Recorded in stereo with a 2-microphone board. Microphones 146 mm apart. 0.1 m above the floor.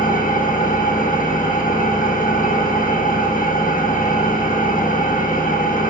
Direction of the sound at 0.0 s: 70° left (ahead or behind).